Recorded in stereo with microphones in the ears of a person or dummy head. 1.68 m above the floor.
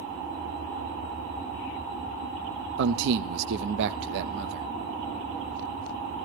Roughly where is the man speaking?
Right.